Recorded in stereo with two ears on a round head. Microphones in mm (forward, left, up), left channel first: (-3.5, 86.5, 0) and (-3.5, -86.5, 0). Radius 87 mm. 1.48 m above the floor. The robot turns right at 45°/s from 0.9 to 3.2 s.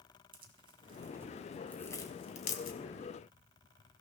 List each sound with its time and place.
0.3 s tearing paper: 30° right (ahead or behind), 2.5 m; by 2.8 s 55° left (ahead or behind), 2.5 m